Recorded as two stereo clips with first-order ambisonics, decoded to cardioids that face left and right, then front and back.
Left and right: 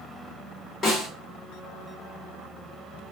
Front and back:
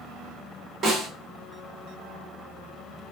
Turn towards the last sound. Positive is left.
turn(degrees=150)